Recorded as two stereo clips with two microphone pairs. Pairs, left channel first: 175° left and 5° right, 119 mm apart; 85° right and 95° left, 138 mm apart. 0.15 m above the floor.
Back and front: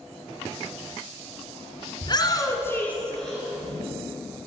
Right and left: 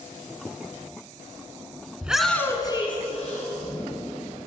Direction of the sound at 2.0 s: 170° left.